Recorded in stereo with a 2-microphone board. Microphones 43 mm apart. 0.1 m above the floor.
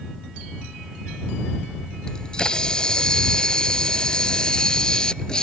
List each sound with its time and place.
2.1 s a camera shutter: 20° left (ahead or behind)